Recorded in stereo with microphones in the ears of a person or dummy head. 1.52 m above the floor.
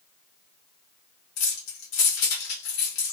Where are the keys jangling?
65° left (ahead or behind), 1.2 m.